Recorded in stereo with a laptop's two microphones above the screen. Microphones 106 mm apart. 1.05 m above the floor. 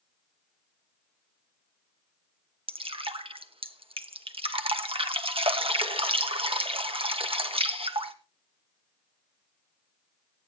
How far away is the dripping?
About 1.1 m.